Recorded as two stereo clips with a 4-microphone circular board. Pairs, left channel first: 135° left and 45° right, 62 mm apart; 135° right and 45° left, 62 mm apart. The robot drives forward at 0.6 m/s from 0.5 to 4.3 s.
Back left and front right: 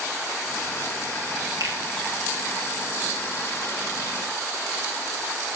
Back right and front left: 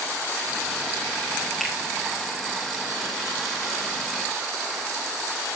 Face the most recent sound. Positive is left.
turn(degrees=-65)